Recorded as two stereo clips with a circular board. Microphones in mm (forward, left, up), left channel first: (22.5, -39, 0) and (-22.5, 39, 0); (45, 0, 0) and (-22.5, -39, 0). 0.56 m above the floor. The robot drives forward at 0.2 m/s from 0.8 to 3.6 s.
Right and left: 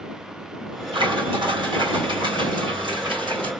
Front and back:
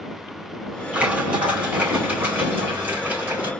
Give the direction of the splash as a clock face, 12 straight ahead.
7 o'clock.